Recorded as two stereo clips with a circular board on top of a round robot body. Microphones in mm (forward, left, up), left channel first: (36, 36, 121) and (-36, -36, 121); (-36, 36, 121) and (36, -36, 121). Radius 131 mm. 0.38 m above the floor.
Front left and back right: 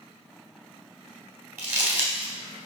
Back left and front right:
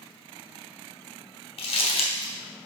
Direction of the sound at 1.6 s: 155° left.